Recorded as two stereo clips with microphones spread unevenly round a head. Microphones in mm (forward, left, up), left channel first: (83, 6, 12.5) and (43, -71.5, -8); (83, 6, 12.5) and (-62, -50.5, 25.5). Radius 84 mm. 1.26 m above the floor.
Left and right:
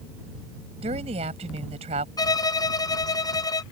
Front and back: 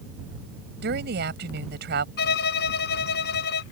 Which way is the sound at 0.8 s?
140° right.